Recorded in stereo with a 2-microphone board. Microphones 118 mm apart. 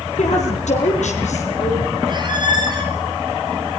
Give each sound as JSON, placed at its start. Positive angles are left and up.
{"t": 0.2, "sound": "a woman speaking", "side_deg": 75, "distance_m": 5.5}
{"t": 2.1, "sound": "a squeak", "side_deg": -40, "distance_m": 4.5}